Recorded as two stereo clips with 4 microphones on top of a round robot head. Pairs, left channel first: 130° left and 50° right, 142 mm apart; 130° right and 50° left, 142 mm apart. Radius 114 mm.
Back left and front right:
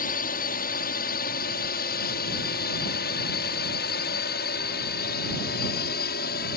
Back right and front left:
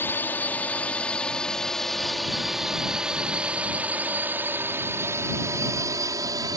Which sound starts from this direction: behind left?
A drone, at 0.0 s.